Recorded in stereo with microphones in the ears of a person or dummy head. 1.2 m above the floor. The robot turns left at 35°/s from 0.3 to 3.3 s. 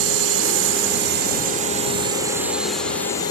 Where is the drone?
100° right; by 3.3 s 155° left.